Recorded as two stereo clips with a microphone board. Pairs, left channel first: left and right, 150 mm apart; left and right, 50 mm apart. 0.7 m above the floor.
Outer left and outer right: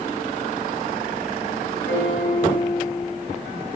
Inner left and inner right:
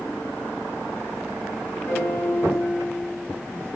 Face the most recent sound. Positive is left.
turn(degrees=75)  # may be behind; listen again after turning